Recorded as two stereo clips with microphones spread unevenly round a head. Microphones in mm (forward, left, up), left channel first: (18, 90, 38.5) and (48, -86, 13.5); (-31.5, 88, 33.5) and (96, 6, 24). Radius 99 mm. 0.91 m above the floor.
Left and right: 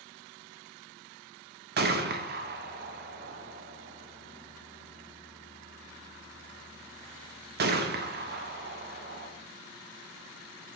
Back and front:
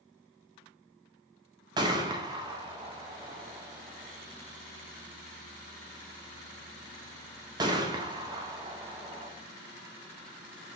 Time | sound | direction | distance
1.8 | a gunshot | 95° right | 0.6 m